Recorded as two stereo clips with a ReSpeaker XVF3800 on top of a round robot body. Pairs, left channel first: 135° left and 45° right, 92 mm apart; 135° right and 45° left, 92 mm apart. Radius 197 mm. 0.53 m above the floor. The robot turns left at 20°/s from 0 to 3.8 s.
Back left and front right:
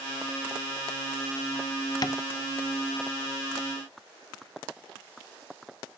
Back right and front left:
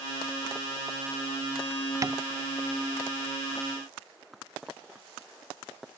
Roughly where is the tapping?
Left.